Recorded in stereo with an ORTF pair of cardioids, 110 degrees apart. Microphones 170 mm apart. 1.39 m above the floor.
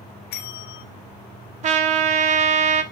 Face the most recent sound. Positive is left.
turn(degrees=-45)